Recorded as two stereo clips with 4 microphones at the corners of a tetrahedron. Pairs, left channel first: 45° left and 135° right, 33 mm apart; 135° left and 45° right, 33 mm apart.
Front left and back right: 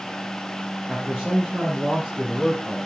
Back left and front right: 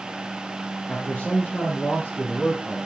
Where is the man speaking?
165° left, 3.5 m; by 2.8 s straight behind, 4.5 m.